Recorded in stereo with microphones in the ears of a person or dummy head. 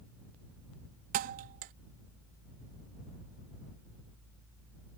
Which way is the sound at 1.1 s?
45° right (ahead or behind).